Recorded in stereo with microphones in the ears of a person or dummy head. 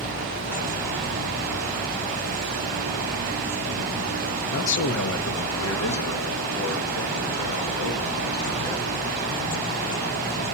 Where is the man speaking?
60° left (ahead or behind), 0.7 m; by 9.2 s 85° left, 4 m.